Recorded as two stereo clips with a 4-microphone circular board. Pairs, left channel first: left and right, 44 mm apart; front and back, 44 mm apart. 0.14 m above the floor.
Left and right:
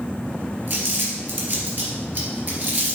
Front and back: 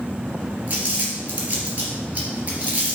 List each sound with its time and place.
0.7 s crumpling: 130° right, 2.5 m